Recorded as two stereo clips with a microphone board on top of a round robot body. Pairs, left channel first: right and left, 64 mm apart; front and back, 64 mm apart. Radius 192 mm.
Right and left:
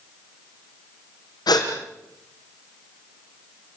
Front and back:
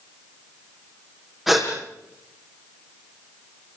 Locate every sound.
1.5 s a gasp: 95° right, 6 m